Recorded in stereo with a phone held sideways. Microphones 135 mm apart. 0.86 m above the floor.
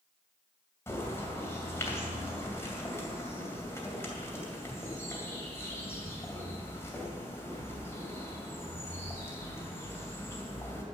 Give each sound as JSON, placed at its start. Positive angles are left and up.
{"t": 0.9, "sound": "a bird", "side_deg": 20, "distance_m": 2.5}